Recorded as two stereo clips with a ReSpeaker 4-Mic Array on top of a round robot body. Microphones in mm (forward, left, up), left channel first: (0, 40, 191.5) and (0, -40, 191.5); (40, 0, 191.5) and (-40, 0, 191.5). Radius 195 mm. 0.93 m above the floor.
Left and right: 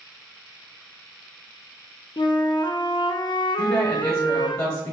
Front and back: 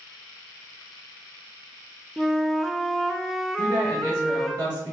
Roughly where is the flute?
Left.